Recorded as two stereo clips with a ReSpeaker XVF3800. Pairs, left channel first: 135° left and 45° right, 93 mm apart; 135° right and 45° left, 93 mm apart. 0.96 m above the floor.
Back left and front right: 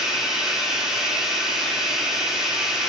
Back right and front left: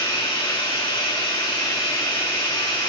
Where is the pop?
I don't hear a pop.